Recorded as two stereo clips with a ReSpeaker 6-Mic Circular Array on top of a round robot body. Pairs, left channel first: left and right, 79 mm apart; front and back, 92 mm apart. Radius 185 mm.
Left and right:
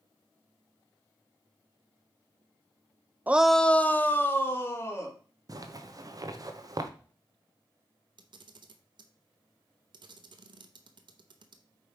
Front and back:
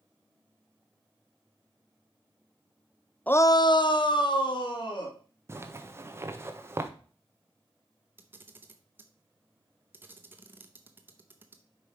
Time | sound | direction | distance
3.3 | a shout | 55° right | 0.7 m
5.5 | a zipper | 120° right | 1.3 m
8.2 | a camera shutter | 110° right | 0.9 m